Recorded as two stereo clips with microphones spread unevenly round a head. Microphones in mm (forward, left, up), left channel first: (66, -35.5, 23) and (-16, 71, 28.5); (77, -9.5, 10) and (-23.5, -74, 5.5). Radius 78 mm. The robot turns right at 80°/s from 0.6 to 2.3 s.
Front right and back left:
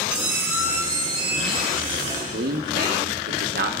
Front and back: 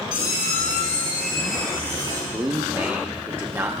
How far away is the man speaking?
About 1.0 m.